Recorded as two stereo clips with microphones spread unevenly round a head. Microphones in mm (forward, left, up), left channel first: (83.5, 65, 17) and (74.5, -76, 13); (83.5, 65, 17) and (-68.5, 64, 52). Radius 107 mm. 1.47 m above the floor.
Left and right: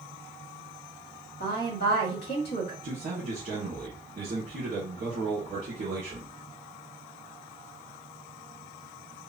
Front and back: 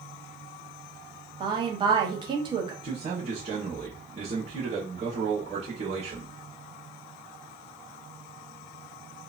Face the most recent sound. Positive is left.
turn(degrees=-135)